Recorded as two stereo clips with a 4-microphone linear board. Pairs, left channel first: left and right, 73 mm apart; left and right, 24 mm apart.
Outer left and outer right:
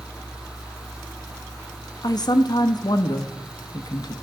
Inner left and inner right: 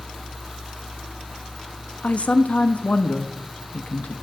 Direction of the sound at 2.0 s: 60° left (ahead or behind).